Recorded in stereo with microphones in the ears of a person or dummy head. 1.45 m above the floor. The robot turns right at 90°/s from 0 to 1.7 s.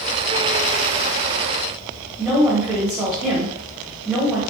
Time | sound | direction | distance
2.2 | a woman speaking | centre (ahead or behind) | 1.2 m